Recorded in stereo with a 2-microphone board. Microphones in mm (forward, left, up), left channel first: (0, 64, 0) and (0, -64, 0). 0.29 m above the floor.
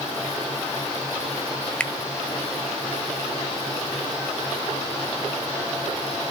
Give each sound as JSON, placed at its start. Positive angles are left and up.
{"t": 1.8, "sound": "a finger snap", "side_deg": 10, "distance_m": 1.1}